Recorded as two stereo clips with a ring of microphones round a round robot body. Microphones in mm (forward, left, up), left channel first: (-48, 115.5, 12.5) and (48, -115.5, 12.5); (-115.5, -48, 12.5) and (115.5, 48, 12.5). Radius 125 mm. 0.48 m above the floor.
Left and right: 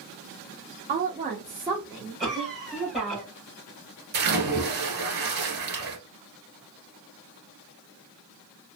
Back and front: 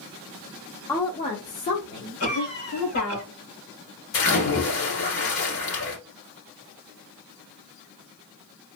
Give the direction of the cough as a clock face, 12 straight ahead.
5 o'clock.